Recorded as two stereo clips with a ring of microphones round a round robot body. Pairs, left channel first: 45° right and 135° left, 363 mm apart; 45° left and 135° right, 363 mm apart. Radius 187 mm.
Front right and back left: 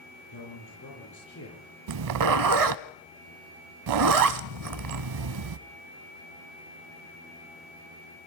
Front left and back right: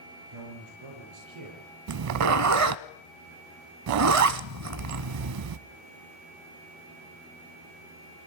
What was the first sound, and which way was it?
A man speaking, 100° right.